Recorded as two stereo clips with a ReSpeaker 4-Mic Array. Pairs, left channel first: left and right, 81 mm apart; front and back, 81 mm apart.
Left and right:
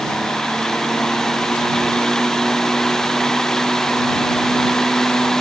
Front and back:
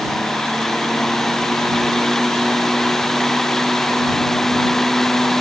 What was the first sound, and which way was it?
Only background noise.